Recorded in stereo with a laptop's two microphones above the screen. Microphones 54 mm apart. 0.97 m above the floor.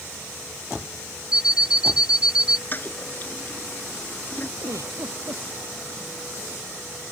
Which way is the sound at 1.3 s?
15° right (ahead or behind).